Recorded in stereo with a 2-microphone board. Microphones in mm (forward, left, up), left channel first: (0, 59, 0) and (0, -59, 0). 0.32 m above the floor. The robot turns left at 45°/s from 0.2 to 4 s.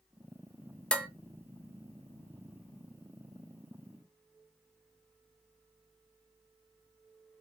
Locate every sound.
0.9 s dishes clattering: 10° left (ahead or behind), 0.6 m; by 1.1 s 15° left (ahead or behind), 0.6 m